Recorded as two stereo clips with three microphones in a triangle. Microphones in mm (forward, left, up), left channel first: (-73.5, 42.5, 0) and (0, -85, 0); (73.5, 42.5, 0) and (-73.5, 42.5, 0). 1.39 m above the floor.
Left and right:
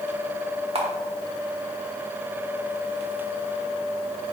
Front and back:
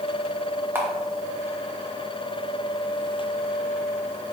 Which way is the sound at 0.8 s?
105° right.